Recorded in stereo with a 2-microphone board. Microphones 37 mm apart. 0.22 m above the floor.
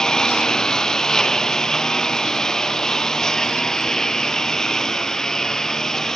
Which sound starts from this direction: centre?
A lawn mower, at 0.0 s.